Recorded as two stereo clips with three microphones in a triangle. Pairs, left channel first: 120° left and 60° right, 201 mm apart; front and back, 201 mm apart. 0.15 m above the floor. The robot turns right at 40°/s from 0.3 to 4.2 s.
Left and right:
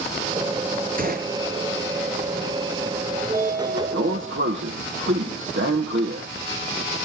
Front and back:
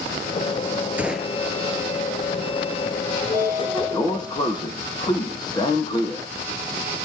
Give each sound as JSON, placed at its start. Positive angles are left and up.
{"t": 1.0, "sound": "a gunshot", "azimuth_deg": -100, "distance_m": 1.9}
{"t": 3.2, "sound": "a sliding door", "azimuth_deg": -110, "distance_m": 3.5}